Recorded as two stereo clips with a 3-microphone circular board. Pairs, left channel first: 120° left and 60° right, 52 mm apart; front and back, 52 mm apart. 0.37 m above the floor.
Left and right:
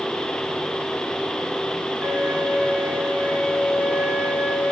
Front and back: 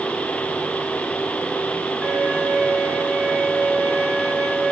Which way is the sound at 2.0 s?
110° right.